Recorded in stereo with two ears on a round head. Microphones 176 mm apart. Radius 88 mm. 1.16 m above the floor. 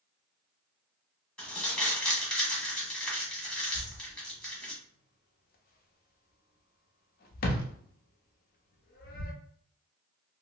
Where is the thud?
45° left (ahead or behind), 0.6 m.